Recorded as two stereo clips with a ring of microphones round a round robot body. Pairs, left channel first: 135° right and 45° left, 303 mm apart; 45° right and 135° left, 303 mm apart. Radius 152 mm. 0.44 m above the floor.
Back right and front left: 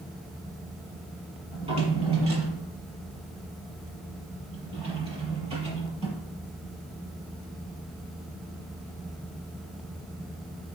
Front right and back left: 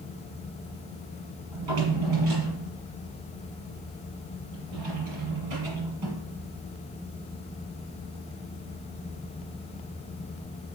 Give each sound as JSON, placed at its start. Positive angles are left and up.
{"t": 1.5, "sound": "a drawer", "azimuth_deg": 115, "distance_m": 5.5}